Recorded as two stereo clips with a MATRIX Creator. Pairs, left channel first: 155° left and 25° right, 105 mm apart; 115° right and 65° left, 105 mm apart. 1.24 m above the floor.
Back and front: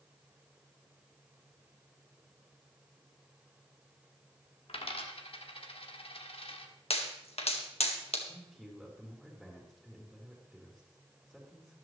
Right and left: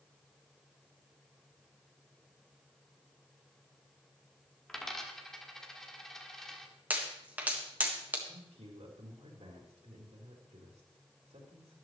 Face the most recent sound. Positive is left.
turn(degrees=70)